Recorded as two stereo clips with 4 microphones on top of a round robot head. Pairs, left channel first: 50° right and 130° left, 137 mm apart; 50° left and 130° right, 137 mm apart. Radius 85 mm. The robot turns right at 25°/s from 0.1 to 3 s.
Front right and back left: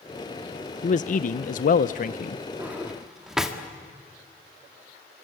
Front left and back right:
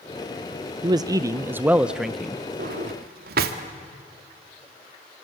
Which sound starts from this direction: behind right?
A drawer, at 2.6 s.